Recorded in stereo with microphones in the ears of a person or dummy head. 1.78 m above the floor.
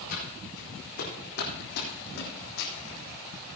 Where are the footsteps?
55° left (ahead or behind), 4.5 m; by 2.7 s 60° left (ahead or behind), 4 m.